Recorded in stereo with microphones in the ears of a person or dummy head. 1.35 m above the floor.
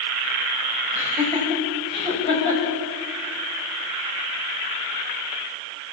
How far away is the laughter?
About 5.5 m.